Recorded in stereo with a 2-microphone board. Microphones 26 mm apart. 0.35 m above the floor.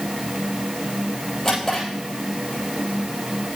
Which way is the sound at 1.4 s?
20° left (ahead or behind).